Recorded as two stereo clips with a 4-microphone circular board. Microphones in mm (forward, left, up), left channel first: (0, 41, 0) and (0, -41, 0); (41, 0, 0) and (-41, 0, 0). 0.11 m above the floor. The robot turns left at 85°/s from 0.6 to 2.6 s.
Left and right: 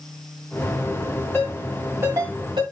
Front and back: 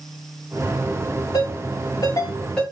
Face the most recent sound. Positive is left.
turn(degrees=-80)